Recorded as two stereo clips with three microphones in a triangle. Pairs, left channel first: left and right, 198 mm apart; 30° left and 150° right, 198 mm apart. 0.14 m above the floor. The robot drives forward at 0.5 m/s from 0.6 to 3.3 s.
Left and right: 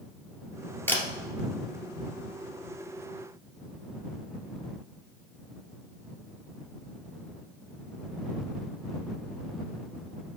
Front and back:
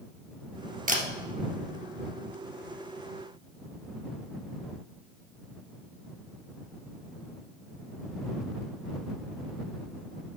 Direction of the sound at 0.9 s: 170° left.